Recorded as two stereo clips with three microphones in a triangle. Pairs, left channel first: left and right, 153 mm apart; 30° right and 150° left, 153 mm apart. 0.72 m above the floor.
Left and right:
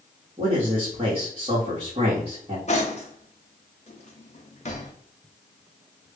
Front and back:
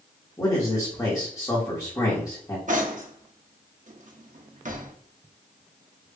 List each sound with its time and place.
0.4 s a man speaking: 80° right, 1.2 m
2.7 s cutlery clinking: 125° left, 0.6 m